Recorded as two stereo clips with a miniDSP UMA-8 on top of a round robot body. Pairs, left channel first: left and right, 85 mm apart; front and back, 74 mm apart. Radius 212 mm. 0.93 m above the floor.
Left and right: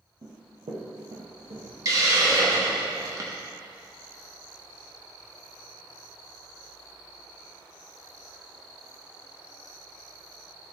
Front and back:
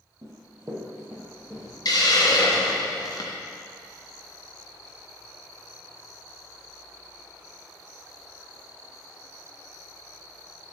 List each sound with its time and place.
0.2 s running footsteps: 135° right, 2.0 m; by 1.7 s 95° right, 3 m
1.9 s a hiss: 40° right, 1.0 m